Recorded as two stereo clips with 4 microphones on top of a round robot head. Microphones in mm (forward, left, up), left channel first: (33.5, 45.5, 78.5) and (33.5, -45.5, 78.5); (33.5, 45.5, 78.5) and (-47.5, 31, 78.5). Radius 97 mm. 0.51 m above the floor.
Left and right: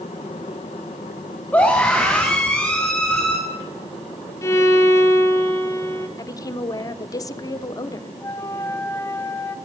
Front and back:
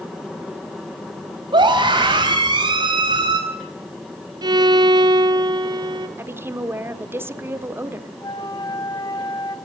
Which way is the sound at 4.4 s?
155° left.